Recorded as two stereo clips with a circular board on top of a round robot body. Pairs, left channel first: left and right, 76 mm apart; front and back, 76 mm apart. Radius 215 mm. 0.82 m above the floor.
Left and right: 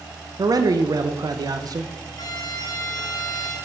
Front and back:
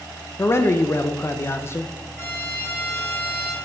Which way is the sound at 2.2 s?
65° left.